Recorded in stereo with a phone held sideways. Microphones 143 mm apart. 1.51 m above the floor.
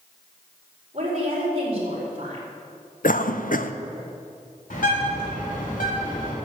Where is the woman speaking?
45° right (ahead or behind), 4.5 m.